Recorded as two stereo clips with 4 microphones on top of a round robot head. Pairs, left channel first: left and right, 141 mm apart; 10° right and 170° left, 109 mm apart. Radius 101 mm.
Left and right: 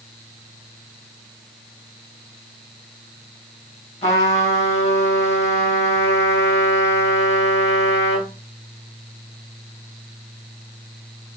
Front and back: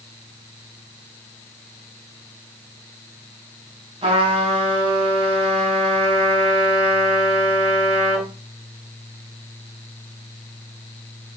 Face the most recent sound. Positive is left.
turn(degrees=130)